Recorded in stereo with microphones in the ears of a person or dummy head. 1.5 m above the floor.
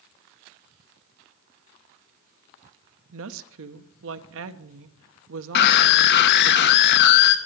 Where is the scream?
60° left (ahead or behind), 1.1 m.